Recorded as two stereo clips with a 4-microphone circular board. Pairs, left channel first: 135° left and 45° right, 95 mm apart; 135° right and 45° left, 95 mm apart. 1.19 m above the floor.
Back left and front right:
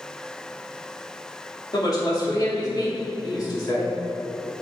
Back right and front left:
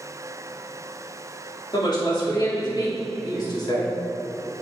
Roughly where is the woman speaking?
Behind.